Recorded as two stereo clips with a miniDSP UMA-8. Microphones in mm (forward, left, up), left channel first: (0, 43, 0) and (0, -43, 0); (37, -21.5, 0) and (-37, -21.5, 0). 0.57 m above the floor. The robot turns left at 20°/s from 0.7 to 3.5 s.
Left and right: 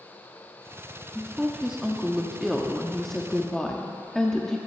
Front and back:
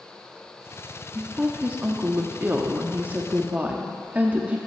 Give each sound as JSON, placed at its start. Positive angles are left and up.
{"t": 1.1, "sound": "a woman speaking", "azimuth_deg": -150, "distance_m": 0.6}